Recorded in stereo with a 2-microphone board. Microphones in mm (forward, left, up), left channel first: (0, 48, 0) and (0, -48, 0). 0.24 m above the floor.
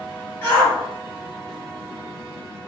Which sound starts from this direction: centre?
A shout, at 0.4 s.